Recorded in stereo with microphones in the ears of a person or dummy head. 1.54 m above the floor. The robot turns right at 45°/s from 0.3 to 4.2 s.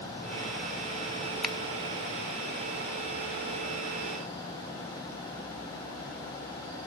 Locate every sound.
1.4 s a finger snap: 5° left (ahead or behind), 1.7 m; by 1.6 s centre (ahead or behind), 1.7 m